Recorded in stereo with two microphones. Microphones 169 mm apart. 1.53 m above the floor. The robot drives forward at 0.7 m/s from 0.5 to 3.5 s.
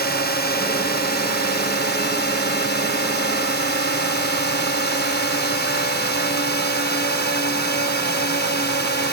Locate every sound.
0.0 s a drone: 75° left (ahead or behind); by 9.1 s 90° left